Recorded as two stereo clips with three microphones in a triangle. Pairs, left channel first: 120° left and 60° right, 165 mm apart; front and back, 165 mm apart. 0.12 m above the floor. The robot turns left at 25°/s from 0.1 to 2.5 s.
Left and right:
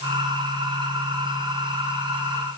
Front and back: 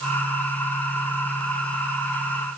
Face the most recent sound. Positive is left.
No sound to turn to.